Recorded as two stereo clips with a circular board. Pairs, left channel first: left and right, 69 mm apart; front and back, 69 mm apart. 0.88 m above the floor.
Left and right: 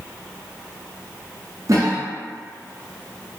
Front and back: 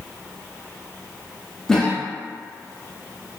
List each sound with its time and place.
1.7 s a cough: 80° right, 0.7 m